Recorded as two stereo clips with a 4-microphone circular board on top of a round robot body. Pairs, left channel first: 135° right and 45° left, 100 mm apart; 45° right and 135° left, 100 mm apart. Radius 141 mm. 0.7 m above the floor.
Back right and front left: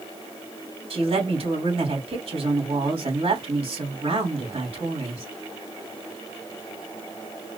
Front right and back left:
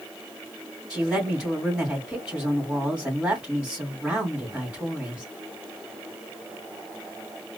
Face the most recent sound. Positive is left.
turn(degrees=55)